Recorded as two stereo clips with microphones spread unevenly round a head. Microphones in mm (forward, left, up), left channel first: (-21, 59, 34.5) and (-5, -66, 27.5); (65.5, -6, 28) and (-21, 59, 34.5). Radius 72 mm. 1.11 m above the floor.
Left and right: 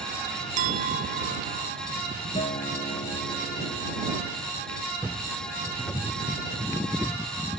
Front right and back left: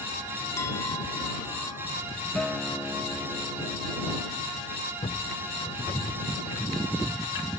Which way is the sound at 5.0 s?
10° left.